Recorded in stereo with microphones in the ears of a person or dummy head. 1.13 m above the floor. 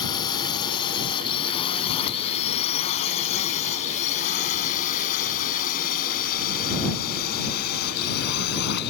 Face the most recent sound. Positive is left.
turn(degrees=60)  # may be behind; listen again after turning